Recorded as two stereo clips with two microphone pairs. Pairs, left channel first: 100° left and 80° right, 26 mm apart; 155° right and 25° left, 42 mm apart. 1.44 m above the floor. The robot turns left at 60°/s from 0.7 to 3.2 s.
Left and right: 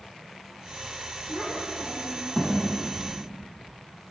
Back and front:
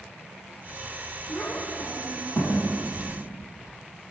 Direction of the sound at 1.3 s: 115° right.